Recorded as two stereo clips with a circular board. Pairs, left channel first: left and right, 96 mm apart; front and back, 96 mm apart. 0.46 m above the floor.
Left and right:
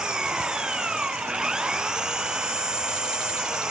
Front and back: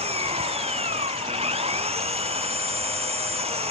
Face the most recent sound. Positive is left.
turn(degrees=-175)